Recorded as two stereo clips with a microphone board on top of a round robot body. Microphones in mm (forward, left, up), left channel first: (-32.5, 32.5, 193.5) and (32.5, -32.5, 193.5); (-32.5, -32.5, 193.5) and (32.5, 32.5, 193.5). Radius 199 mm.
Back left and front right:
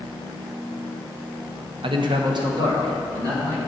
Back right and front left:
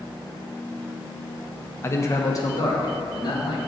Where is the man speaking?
70° right, 0.7 m; by 3.6 s 95° right, 2.0 m.